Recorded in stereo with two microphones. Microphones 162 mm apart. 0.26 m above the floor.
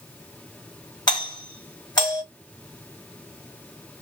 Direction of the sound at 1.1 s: 25° left (ahead or behind).